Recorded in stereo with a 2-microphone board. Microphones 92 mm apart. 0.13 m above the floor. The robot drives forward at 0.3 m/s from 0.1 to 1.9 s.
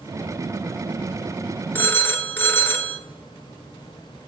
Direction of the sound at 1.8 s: 25° left (ahead or behind).